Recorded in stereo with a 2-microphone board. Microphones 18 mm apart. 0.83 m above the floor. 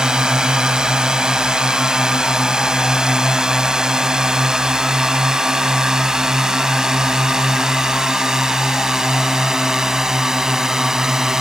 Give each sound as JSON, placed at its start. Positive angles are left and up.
{"t": 0.0, "sound": "a drone", "side_deg": -40}